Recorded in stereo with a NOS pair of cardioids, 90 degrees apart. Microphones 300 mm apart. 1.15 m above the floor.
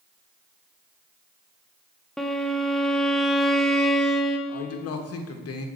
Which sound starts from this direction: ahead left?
A man speaking, at 4.5 s.